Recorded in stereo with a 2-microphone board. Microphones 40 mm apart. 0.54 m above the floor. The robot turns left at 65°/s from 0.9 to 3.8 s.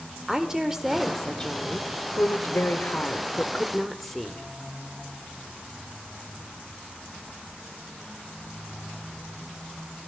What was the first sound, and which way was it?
A woman speaking, 165° right.